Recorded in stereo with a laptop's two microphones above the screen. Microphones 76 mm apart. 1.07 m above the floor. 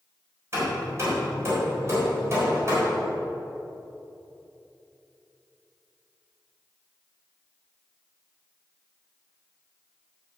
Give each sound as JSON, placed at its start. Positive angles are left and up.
{"t": 0.5, "sound": "hammering", "side_deg": -35, "distance_m": 3.5}